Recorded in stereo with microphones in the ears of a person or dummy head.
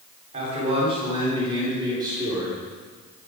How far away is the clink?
No clink in this recording.